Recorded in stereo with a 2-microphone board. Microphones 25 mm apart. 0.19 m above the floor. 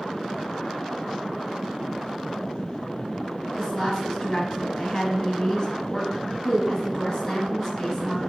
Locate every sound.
3.6 s a woman speaking: 25° left (ahead or behind), 1.1 m